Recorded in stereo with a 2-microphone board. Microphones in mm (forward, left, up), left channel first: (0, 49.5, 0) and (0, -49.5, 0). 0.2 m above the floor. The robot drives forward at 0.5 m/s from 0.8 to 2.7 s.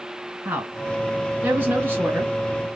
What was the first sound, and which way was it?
A woman speaking, 20° right (ahead or behind).